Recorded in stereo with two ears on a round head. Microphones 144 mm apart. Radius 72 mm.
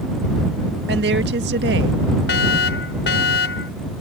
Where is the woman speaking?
85° right.